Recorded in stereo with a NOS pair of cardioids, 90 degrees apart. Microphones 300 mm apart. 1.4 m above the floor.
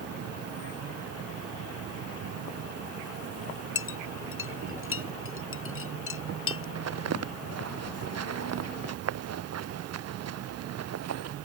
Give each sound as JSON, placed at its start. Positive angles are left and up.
{"t": 0.0, "sound": "an insect", "azimuth_deg": -55}
{"t": 3.8, "sound": "a clink", "azimuth_deg": 45}
{"t": 6.8, "sound": "footsteps", "azimuth_deg": -55}